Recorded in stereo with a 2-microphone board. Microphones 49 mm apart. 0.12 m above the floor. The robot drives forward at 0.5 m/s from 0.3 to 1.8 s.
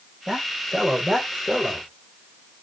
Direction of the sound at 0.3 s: 5° right (ahead or behind).